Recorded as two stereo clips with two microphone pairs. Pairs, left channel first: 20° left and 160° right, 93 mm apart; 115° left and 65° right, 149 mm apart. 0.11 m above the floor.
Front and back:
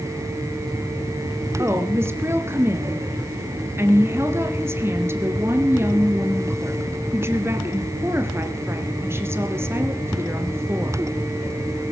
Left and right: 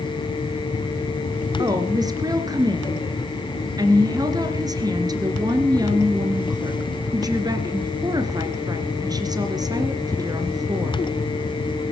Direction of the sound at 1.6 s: 115° right.